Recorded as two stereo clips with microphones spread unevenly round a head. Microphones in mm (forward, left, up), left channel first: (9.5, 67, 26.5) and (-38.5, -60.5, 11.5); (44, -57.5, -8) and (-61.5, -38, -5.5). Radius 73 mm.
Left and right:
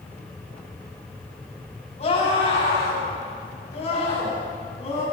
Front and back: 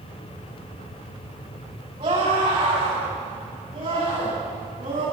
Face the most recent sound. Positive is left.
turn(degrees=110)